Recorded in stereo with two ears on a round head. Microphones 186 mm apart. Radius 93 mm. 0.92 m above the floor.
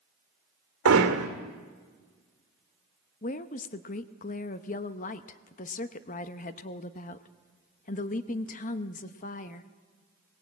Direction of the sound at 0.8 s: 80° right.